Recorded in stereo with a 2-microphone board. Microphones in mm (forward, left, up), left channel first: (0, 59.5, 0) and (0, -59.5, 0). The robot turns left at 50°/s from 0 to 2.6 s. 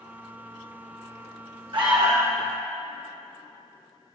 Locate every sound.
1.7 s an alarm: 130° right, 1.3 m; by 2.4 s 160° right, 1.3 m